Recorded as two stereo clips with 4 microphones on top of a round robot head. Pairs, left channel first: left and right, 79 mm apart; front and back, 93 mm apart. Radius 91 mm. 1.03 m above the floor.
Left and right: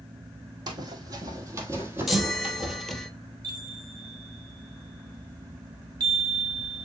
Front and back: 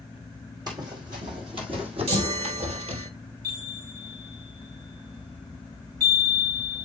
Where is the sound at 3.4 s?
125° right, 1.9 m.